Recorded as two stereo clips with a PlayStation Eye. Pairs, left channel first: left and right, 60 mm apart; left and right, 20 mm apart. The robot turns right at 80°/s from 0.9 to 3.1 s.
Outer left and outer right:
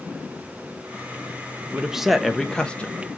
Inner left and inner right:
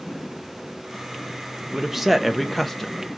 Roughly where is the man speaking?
Centre.